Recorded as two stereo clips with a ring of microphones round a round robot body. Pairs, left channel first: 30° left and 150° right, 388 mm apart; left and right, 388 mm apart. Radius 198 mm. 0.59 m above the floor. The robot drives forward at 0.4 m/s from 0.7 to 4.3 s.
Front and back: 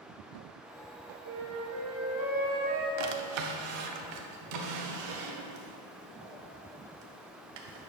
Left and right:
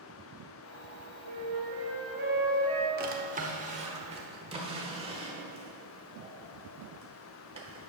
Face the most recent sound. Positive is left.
turn(degrees=-165)